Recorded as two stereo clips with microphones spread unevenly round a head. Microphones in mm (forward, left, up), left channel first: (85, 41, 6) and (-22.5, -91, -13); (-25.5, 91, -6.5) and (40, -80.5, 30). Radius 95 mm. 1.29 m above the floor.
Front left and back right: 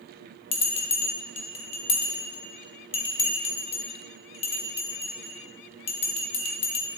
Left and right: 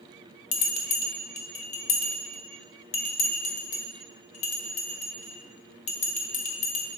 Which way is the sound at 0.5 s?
65° left.